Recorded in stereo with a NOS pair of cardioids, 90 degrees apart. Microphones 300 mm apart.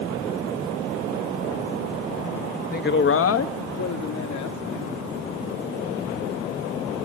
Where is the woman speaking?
30° left, 1.1 m; by 4.6 s 70° left, 2.5 m.